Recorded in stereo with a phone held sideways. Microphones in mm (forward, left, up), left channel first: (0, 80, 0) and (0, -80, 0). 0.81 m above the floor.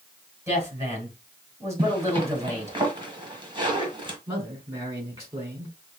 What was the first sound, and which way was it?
A woman speaking, 20° right (ahead or behind).